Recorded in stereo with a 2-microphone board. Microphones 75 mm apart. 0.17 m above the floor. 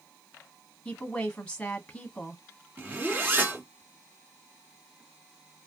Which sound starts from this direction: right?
A zipper, at 2.8 s.